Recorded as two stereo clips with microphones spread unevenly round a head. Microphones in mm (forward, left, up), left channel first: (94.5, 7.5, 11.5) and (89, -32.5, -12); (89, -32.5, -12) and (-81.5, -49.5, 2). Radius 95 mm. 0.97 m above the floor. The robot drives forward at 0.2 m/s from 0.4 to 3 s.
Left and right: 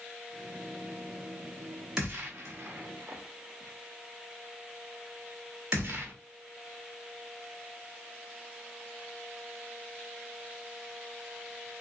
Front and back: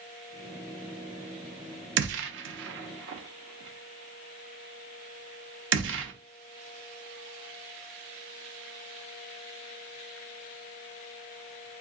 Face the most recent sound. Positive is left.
turn(degrees=170)